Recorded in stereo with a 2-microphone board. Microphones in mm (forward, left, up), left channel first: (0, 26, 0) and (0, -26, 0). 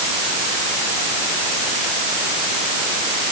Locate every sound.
Only background noise.